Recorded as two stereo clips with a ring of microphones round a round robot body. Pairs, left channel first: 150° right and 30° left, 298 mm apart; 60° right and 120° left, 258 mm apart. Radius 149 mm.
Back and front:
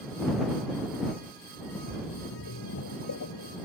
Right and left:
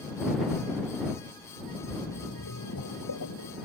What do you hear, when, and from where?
1.7 s a splash: 105° right